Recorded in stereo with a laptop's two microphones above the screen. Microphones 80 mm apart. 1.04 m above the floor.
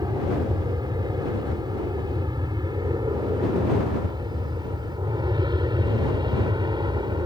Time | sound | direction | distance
0.0 | an aircraft | 60° right (ahead or behind) | ?